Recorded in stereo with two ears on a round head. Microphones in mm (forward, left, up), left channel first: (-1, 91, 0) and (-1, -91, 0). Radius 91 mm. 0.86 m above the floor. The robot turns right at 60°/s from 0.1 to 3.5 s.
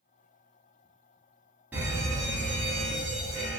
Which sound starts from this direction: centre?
A fire alarm, at 1.7 s.